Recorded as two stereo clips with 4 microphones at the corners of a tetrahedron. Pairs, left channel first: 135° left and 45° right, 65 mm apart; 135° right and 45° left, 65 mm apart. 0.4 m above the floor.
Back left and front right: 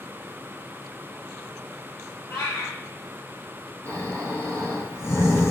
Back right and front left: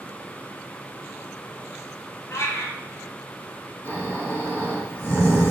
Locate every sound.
2.3 s a cat meowing: straight behind, 2.5 m
3.9 s snoring: 90° left, 3 m